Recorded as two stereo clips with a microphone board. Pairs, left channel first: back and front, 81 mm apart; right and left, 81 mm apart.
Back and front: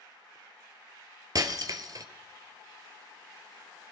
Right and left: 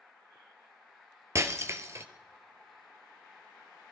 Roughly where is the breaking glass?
Ahead left.